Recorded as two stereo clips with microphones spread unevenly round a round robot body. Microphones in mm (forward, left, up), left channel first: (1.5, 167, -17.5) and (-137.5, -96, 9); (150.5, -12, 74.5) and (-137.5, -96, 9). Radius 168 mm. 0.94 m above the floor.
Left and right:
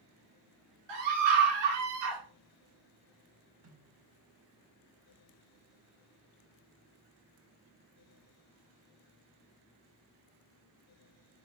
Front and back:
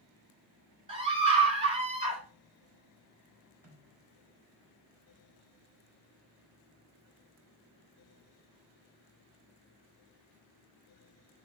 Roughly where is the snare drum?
Right.